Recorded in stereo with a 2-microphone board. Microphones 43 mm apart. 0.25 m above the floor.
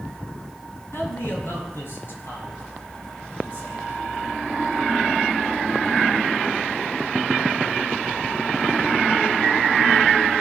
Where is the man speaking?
55° left (ahead or behind), 3 m; by 4.4 s 40° left (ahead or behind), 7 m.